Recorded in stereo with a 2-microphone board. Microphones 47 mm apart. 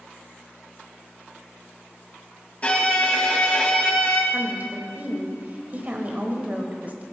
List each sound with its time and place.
2.6 s a violin: 30° left (ahead or behind), 1.5 m
4.3 s a woman speaking: 35° right (ahead or behind), 1.1 m